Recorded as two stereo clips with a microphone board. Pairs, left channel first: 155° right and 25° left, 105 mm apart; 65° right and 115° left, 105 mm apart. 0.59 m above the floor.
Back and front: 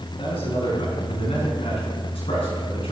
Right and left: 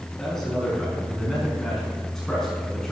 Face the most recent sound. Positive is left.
turn(degrees=-150)